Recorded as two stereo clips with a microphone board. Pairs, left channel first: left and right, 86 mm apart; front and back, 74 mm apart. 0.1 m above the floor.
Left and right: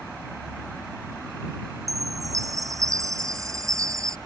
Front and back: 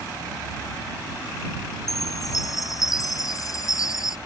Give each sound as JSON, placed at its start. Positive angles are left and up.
{"t": 1.9, "sound": "a chime", "azimuth_deg": -40}